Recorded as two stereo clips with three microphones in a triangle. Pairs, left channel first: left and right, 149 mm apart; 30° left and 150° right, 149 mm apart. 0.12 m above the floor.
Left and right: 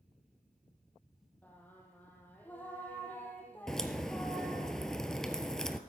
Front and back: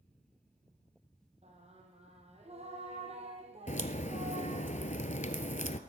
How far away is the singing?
About 2.5 m.